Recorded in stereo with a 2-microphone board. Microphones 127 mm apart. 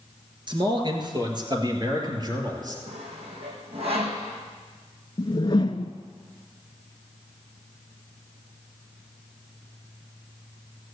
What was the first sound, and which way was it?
A man speaking, 40° right (ahead or behind).